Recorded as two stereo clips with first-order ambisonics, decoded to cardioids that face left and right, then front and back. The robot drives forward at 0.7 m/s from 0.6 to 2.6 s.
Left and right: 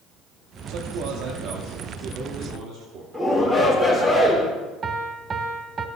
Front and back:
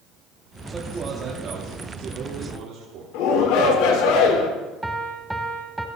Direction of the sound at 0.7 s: 105° right.